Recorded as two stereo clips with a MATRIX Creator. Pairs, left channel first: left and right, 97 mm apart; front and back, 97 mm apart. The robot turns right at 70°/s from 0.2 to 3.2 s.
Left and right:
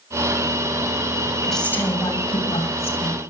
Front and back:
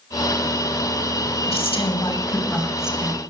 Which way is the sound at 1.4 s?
5° right.